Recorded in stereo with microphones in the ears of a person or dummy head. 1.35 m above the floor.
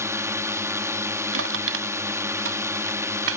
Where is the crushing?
80° right.